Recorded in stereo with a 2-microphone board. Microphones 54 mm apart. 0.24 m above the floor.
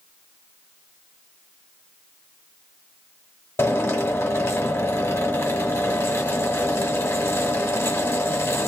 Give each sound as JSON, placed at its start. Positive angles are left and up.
{"t": 3.6, "sound": "a drill", "side_deg": 50, "distance_m": 1.5}